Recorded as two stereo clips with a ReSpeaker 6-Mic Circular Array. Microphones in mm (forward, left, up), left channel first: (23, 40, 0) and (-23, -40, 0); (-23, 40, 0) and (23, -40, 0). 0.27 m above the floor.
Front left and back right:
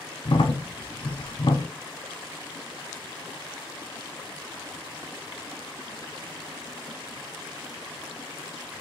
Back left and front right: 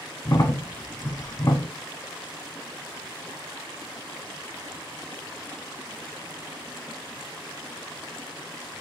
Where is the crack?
70° left, 0.6 m.